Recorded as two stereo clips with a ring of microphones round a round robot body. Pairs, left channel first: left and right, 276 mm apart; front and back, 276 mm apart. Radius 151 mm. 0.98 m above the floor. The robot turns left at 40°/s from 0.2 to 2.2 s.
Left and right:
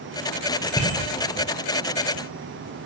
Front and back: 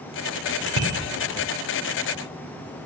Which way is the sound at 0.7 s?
175° left.